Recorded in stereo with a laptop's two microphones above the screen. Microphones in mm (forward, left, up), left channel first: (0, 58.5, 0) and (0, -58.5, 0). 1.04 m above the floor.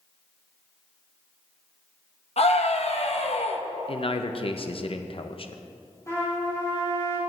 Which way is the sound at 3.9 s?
50° left (ahead or behind).